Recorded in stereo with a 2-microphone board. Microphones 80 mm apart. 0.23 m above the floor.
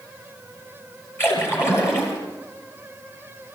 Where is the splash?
30° left (ahead or behind), 5.5 m.